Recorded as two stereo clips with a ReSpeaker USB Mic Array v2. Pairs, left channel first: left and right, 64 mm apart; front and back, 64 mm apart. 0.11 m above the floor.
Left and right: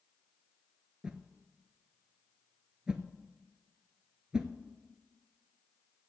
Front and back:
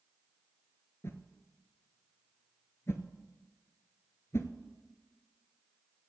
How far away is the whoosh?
About 0.7 m.